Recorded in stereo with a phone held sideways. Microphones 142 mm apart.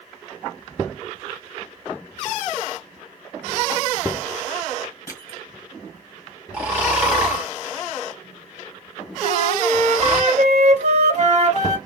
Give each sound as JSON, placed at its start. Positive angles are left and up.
{"t": 5.1, "sound": "crushing", "side_deg": 25, "distance_m": 2.0}
{"t": 6.5, "sound": "snoring", "side_deg": -10, "distance_m": 2.0}
{"t": 9.2, "sound": "a flute", "side_deg": -55, "distance_m": 2.0}